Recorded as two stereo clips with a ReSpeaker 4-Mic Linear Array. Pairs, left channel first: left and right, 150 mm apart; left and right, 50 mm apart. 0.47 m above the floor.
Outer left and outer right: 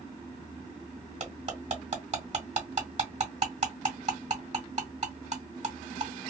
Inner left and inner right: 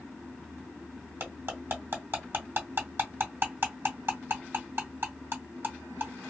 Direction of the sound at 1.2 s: 50° right (ahead or behind).